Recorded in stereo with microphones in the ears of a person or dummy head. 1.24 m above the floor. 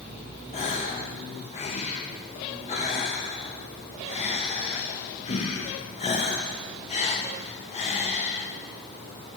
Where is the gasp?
35° left (ahead or behind), 0.6 m.